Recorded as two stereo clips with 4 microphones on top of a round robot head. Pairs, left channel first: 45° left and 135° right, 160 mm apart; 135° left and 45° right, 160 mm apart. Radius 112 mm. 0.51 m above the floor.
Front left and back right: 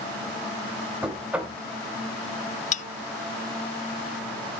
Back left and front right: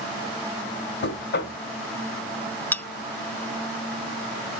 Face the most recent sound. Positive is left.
turn(degrees=60)